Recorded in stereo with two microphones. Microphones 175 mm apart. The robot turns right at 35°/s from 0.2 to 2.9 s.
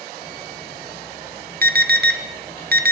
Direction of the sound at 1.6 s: 60° right (ahead or behind).